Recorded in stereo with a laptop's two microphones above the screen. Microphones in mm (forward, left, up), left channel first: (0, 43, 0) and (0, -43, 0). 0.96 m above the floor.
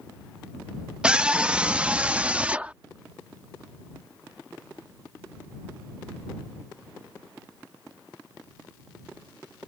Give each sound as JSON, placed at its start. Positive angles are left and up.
{"t": 1.0, "sound": "a scream", "side_deg": -10}